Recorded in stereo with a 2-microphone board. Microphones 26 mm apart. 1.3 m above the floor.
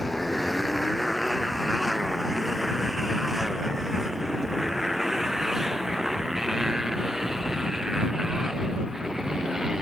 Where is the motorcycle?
5° left (ahead or behind); by 9.8 s 25° right (ahead or behind).